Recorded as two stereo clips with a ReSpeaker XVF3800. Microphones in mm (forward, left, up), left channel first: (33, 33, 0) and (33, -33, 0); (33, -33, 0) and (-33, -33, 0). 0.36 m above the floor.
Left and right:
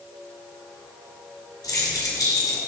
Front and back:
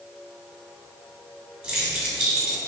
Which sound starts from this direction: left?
Keys jangling, at 1.6 s.